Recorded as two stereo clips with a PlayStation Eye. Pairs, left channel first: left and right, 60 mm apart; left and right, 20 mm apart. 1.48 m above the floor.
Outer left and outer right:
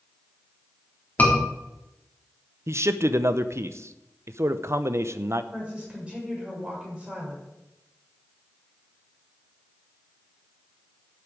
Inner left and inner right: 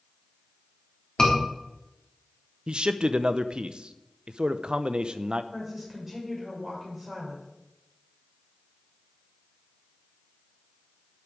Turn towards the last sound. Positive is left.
turn(degrees=-20)  # may be behind; listen again after turning